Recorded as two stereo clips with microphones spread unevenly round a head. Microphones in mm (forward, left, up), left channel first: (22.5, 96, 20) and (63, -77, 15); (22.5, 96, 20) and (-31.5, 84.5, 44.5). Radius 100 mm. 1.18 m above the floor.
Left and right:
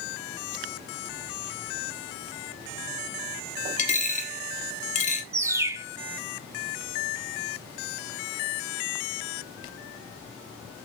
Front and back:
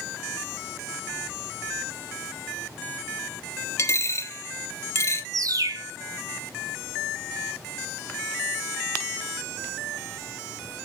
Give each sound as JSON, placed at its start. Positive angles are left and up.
{"t": 3.8, "sound": "a dropped coin", "azimuth_deg": 60, "distance_m": 1.2}
{"t": 5.3, "sound": "a bird", "azimuth_deg": -145, "distance_m": 0.8}